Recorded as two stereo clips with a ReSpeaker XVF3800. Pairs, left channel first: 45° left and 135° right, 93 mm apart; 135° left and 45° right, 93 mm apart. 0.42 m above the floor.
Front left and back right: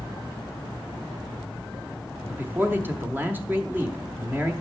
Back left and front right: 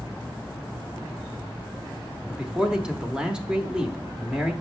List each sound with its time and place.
2.3 s a man speaking: 115° right, 1.0 m